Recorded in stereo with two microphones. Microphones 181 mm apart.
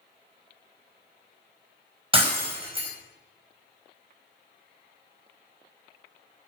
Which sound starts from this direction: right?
Breaking glass, at 2.1 s.